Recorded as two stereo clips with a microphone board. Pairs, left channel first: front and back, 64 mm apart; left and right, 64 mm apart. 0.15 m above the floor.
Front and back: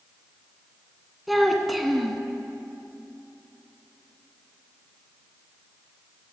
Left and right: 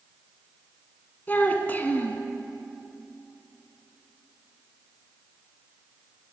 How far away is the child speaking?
About 0.6 m.